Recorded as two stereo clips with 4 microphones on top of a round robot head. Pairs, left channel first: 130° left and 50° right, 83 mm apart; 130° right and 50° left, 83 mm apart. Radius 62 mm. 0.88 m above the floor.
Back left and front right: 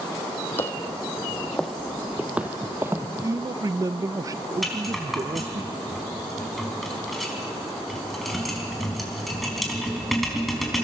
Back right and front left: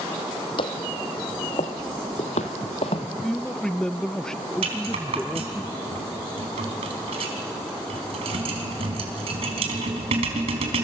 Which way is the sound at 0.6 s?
160° right.